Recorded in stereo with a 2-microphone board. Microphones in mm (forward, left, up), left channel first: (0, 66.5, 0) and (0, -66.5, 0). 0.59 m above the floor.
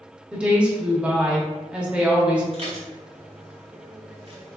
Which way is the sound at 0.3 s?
10° right (ahead or behind).